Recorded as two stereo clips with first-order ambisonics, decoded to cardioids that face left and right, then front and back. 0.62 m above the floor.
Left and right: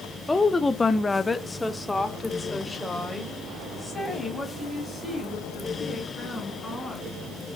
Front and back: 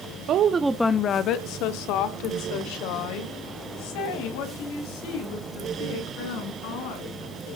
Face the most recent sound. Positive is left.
turn(degrees=5)